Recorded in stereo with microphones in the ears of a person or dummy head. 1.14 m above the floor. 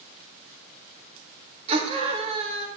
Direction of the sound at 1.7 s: 35° right (ahead or behind).